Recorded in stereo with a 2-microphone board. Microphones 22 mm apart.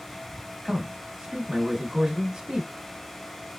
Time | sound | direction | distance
0.7 | a man speaking | 35° right (ahead or behind) | 1.2 m